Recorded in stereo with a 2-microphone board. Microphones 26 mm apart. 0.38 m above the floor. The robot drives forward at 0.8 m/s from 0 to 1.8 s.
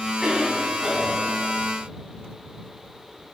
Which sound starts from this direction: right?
A cough, at 0.2 s.